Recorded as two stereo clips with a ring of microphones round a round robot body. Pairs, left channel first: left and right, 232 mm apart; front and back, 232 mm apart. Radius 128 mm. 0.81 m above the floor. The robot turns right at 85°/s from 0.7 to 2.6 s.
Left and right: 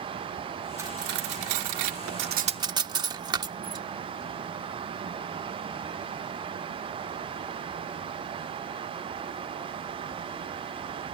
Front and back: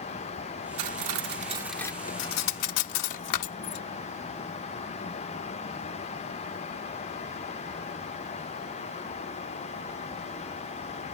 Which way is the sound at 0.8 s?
170° right.